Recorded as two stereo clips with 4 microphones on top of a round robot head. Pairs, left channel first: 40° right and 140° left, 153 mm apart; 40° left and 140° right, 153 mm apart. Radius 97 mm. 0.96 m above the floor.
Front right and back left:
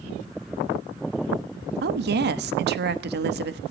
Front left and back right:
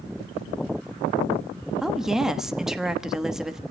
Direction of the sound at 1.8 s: 135° left.